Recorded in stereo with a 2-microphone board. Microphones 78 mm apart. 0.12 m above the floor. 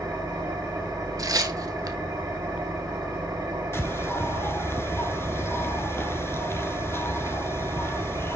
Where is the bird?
30° left (ahead or behind), 0.7 m.